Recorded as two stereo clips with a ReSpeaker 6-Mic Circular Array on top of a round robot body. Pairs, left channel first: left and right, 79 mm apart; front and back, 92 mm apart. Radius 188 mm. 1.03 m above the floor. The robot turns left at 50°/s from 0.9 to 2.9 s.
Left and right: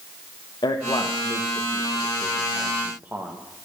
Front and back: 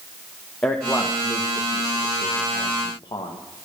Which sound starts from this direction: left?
A man speaking, at 0.6 s.